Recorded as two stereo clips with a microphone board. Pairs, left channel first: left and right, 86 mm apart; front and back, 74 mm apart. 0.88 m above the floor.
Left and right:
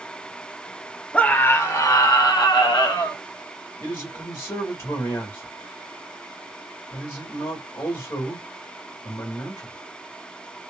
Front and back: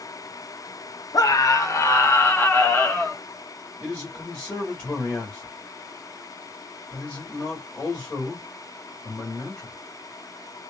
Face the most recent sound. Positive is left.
turn(degrees=65)